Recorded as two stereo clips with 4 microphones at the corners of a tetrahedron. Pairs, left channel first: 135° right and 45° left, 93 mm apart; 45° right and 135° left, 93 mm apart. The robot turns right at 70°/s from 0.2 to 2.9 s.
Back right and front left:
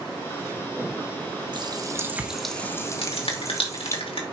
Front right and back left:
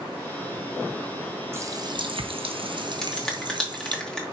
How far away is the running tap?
About 0.9 m.